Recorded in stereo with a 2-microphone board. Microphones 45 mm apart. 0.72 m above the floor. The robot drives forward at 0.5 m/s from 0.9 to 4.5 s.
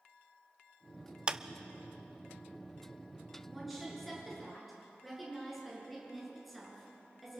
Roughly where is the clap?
Right.